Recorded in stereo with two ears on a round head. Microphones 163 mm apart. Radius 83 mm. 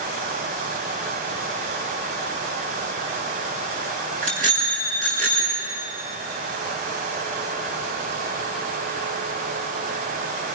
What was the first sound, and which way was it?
A bicycle bell, 40° right (ahead or behind).